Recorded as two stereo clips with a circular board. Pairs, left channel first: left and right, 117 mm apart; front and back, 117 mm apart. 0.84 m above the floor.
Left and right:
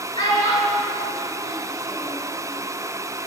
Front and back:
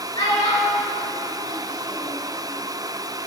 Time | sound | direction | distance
0.1 | a child speaking | 40° left | 1.7 m